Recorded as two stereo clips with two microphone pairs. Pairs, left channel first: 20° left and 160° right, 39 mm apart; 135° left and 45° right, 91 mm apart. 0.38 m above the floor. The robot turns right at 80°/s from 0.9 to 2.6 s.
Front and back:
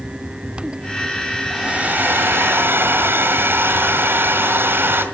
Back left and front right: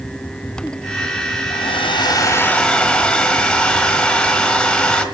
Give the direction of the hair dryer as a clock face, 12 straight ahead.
8 o'clock.